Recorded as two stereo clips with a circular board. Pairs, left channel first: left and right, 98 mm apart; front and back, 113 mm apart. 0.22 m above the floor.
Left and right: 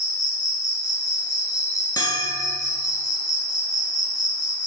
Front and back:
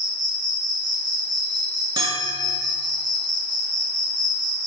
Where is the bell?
135° left, 0.7 m.